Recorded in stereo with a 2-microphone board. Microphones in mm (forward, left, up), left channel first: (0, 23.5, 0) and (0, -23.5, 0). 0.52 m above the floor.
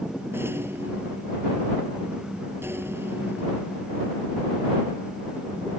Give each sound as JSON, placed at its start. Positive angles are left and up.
{"t": 0.3, "sound": "a rattle", "side_deg": -60}